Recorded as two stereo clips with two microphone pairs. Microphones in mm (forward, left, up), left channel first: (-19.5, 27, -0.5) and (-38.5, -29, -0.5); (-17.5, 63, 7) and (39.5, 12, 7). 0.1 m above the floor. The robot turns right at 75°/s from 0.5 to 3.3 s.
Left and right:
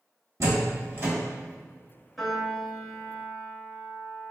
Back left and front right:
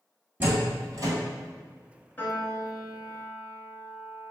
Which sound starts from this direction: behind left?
A piano, at 2.2 s.